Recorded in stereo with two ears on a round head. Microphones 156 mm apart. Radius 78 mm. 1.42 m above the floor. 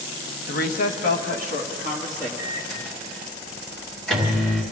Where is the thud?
I don't hear a thud.